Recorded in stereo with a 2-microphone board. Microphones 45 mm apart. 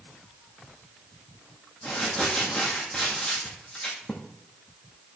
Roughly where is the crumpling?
Centre.